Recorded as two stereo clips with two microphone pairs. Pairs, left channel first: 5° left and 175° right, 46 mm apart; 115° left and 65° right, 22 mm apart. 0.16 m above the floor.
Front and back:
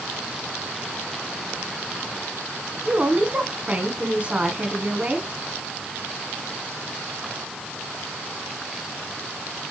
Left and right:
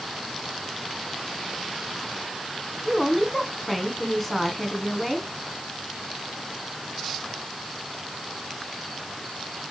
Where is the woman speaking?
160° right, 1.4 m.